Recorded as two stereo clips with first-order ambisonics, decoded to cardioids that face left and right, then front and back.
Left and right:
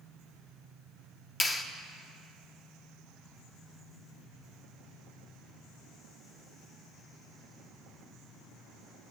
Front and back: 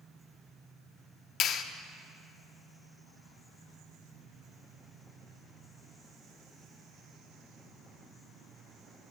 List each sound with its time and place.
1.4 s a clap: 25° left, 0.6 m